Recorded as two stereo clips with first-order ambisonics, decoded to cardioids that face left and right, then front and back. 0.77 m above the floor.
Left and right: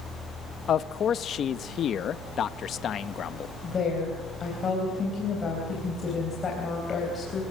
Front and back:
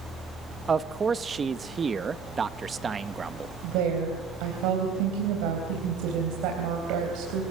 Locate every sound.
0.7 s a man speaking: 125° left, 0.6 m
3.6 s a woman speaking: 160° left, 3.5 m